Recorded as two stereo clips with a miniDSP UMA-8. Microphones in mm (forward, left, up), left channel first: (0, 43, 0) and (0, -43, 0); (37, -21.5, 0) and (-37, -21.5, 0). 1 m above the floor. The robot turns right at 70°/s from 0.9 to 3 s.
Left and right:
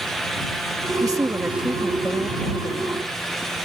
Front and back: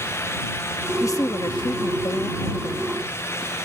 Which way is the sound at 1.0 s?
50° right.